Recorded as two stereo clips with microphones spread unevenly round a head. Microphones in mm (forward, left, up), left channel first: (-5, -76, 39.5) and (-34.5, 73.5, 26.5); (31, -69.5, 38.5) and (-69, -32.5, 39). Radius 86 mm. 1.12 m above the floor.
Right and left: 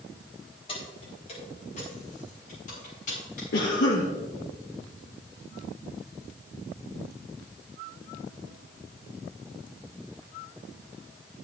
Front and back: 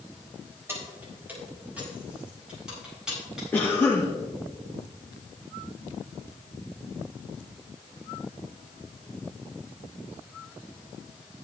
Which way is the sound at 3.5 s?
95° right.